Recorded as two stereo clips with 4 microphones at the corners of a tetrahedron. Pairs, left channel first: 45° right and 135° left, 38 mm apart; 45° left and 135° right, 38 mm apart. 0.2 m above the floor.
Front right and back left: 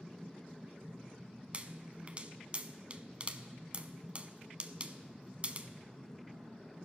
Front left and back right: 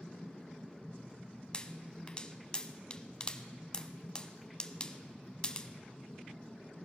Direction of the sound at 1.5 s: 100° left.